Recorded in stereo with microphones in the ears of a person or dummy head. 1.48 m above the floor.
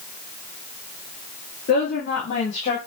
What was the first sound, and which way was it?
A woman speaking, 50° left (ahead or behind).